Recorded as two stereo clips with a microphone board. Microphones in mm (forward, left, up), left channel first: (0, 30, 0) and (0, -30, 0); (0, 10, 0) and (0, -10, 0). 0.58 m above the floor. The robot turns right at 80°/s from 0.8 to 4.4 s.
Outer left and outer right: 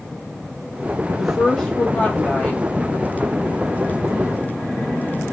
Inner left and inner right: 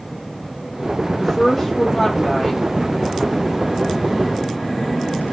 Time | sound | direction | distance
1.2 | a woman speaking | centre (ahead or behind) | 0.8 m